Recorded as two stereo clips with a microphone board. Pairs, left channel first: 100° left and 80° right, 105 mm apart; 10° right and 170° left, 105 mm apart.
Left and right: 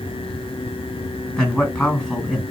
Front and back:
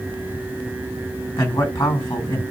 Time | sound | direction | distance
1.4 | a man speaking | 30° left | 1.9 m